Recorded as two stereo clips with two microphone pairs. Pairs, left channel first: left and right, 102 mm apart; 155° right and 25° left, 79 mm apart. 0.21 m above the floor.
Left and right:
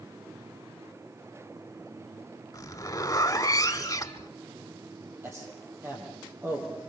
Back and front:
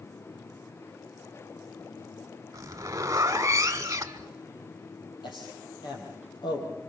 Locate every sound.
2.5 s a zipper: 55° left, 1.2 m
5.2 s a man speaking: 160° right, 7 m